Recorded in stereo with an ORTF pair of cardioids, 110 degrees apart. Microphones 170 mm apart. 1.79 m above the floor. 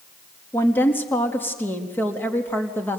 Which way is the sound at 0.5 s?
10° left.